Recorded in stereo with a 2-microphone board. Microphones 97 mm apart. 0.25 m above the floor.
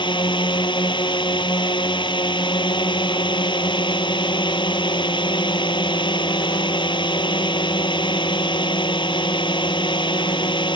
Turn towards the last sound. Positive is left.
turn(degrees=55)  # may be behind; listen again after turning